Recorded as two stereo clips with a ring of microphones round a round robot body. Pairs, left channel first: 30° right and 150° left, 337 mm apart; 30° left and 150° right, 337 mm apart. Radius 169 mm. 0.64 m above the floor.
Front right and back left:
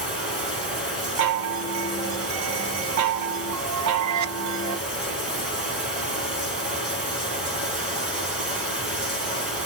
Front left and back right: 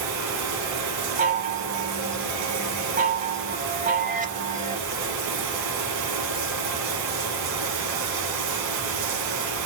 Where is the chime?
150° left, 0.6 m.